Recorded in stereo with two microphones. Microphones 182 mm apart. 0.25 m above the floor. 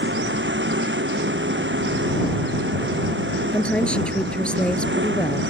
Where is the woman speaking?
5° left (ahead or behind).